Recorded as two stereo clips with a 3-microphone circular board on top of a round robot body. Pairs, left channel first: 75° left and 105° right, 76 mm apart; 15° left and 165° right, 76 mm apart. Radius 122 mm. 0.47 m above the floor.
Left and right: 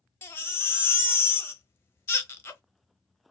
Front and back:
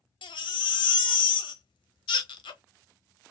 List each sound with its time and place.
0.2 s a baby crying: 15° left, 0.6 m